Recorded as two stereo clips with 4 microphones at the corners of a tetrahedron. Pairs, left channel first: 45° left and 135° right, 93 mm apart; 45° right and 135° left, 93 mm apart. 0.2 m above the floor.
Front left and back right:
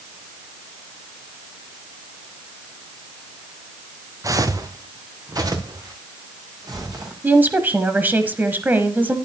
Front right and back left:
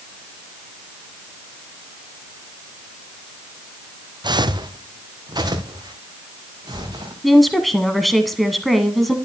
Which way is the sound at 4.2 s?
175° left.